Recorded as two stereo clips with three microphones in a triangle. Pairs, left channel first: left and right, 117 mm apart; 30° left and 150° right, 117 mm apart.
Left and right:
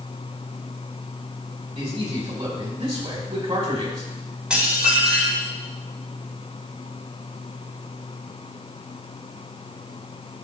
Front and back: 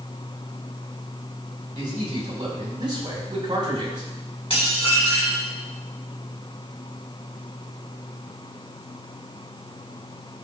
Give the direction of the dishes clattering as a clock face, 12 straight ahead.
12 o'clock.